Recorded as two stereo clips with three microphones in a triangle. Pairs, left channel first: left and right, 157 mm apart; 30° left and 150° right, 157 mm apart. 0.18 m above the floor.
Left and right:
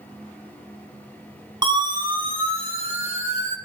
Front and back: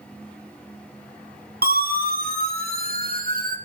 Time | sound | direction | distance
1.6 | a siren | 150° right | 4.5 m